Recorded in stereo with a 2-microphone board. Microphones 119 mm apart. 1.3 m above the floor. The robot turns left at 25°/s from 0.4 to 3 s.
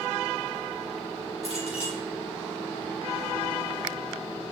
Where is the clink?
60° left (ahead or behind), 4.5 m; by 2.0 s 50° left (ahead or behind), 4.5 m.